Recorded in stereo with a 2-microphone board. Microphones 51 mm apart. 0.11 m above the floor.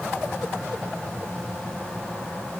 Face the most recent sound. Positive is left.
No sound to turn to.